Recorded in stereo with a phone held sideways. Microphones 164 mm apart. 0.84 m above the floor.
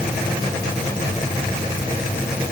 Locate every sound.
Only background noise.